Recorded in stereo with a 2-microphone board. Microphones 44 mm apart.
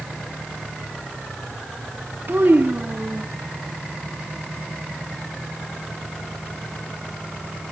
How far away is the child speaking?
About 2.0 m.